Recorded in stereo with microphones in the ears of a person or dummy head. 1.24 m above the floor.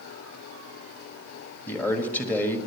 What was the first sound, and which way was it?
A man speaking, 15° left (ahead or behind).